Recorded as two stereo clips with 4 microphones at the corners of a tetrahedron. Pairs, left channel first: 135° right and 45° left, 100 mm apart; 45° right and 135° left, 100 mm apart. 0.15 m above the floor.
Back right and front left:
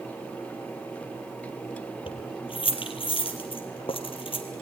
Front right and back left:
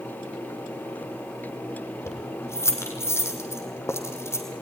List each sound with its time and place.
2.1 s keys jangling: 110° right, 3 m